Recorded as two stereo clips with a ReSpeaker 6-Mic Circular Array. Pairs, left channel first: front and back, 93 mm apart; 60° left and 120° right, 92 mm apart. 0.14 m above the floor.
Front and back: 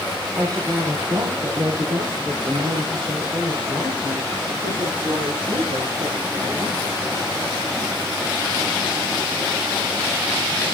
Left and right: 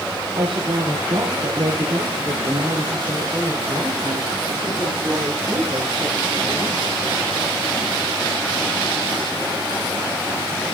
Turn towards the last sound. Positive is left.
turn(degrees=-170)